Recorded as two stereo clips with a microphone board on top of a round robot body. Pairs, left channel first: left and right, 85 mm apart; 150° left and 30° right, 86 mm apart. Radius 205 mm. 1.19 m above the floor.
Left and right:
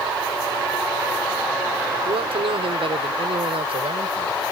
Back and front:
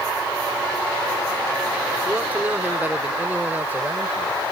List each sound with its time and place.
2.0 s a man speaking: 100° right